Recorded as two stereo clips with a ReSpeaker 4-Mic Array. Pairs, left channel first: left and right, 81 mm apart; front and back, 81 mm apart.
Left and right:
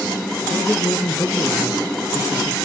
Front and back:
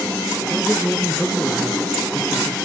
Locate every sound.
0.5 s a man speaking: 85° left, 1.7 m